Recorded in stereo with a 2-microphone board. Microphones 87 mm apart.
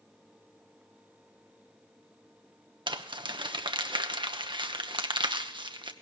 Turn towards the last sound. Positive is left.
turn(degrees=-85)